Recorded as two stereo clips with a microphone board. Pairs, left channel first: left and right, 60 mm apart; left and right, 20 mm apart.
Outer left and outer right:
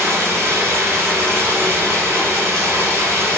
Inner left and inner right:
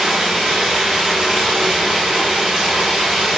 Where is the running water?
45° right (ahead or behind), 1.0 m.